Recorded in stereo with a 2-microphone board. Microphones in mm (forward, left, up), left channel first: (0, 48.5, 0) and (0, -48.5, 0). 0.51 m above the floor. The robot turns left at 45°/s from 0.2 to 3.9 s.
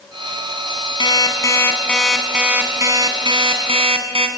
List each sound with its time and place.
1.0 s an alarm clock: 50° left, 2.5 m; by 4.3 s 80° right, 2.5 m